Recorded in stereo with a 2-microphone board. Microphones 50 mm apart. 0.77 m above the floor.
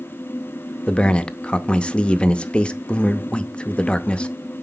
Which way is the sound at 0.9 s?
20° left (ahead or behind).